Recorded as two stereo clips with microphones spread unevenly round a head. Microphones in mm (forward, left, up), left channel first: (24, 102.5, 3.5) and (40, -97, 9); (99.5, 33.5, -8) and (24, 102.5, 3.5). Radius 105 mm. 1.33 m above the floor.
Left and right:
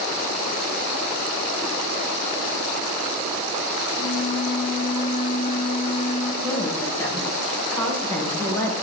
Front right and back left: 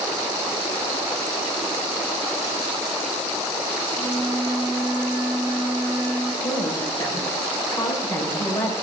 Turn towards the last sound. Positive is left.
turn(degrees=20)